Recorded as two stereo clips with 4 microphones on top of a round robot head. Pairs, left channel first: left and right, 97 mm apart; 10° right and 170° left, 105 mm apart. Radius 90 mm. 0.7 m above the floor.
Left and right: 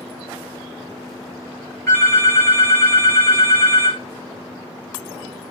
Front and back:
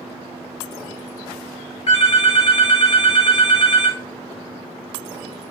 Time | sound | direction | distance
1.9 | a phone ringing | 25° left | 2 m